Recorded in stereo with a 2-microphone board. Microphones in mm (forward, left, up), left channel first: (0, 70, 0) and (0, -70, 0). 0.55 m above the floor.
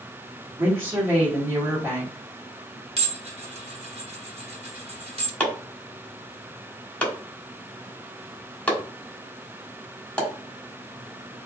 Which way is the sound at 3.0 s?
45° right (ahead or behind).